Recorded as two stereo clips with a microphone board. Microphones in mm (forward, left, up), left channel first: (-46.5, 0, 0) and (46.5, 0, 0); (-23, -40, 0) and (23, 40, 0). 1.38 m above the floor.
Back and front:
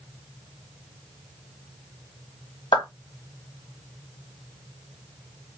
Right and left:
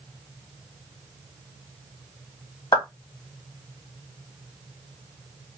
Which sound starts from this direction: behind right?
A clap, at 2.7 s.